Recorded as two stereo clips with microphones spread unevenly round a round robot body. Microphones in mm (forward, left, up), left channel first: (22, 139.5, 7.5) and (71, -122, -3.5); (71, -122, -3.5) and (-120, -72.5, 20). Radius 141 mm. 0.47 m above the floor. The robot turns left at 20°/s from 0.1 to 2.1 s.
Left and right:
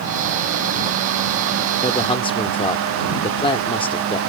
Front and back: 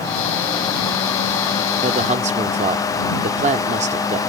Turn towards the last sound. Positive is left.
turn(degrees=155)